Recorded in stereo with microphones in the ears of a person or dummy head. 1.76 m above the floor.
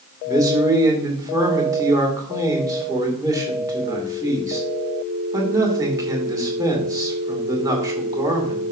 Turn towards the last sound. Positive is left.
turn(degrees=-20)  # may be behind; listen again after turning